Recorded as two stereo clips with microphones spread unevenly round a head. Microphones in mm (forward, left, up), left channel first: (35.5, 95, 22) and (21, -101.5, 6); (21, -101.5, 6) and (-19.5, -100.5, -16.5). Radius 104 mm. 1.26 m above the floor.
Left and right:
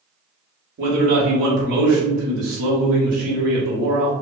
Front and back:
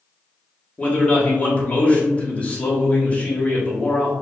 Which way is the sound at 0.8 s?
65° right.